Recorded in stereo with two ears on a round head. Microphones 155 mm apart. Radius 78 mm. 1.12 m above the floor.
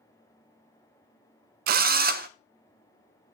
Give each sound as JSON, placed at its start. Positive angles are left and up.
{"t": 1.7, "sound": "a drill", "side_deg": -55, "distance_m": 0.6}